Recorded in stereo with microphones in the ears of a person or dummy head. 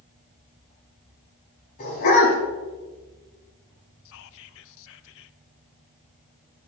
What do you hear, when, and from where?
1.8 s a dog barking: 50° left (ahead or behind), 5 m
4.0 s whispering: 70° left (ahead or behind), 0.7 m